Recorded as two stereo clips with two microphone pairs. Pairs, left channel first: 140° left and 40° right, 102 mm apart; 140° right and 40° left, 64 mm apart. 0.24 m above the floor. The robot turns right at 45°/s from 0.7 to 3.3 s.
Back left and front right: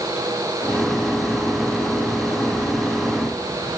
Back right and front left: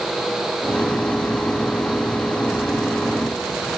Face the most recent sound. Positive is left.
No sound to turn to.